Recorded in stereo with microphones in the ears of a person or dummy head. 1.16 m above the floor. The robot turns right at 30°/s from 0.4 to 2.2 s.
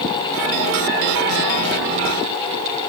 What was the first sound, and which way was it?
Only background noise.